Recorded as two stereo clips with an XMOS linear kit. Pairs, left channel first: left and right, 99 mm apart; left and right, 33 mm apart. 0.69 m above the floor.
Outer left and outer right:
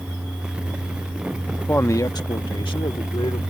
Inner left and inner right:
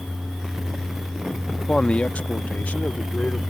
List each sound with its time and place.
1.6 s a man speaking: 15° left (ahead or behind); by 3.4 s 60° left (ahead or behind)